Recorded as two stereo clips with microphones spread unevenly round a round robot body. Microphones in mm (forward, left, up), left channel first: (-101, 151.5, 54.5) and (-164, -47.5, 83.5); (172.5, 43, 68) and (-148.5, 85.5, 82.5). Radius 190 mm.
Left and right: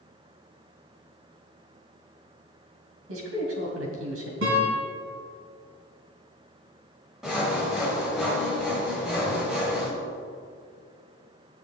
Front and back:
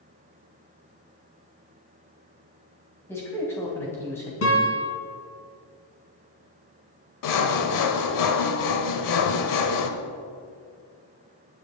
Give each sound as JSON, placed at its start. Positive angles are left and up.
{"t": 3.1, "sound": "a man speaking", "azimuth_deg": -90, "distance_m": 2.5}
{"t": 4.4, "sound": "a guitar", "azimuth_deg": -60, "distance_m": 2.5}
{"t": 7.2, "sound": "sawing", "azimuth_deg": -15, "distance_m": 1.1}